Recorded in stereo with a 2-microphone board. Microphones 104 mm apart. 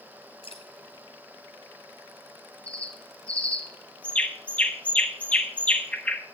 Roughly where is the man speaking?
I don't hear a man speaking.